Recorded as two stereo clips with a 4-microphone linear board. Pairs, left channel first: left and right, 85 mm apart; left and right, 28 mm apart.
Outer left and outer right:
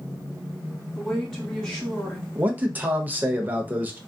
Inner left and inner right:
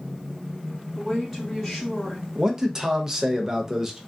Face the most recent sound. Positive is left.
turn(degrees=-20)  # may be behind; listen again after turning